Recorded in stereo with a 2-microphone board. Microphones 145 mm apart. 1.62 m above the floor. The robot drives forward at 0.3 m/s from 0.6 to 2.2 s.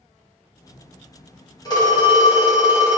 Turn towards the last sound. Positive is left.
turn(degrees=25)  # may be behind; listen again after turning